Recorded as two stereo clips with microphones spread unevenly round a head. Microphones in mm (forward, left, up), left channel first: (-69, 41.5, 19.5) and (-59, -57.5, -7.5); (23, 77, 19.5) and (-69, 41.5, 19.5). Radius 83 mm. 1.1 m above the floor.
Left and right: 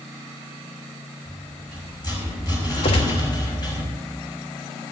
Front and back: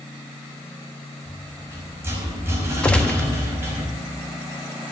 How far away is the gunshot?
About 1.0 m.